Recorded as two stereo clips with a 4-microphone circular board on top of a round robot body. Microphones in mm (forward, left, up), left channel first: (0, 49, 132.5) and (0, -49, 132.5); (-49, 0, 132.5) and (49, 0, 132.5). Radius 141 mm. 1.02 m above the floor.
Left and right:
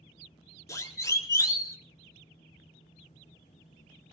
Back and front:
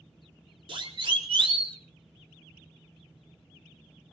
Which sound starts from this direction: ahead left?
A siren, at 0.7 s.